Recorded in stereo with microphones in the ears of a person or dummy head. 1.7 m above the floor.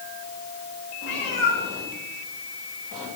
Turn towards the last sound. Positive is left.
turn(degrees=40)  # may be behind; listen again after turning